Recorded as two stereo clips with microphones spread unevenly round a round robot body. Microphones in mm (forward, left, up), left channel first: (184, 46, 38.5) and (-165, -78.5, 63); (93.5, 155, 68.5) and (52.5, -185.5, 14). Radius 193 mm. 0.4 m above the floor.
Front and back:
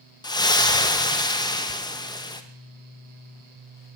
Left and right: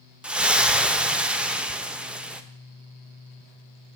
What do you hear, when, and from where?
0.2 s a splash: 35° right, 0.8 m